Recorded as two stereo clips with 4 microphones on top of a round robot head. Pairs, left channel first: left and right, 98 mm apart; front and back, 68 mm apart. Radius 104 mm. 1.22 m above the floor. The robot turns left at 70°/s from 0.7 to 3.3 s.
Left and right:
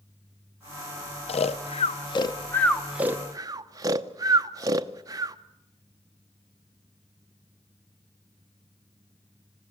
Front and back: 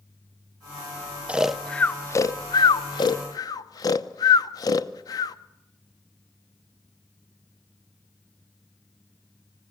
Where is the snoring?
110° left, 0.8 m; by 5.4 s 30° right, 0.8 m.